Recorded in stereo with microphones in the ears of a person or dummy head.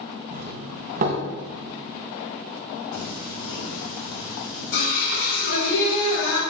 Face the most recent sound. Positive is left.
turn(degrees=70)  # may be behind; listen again after turning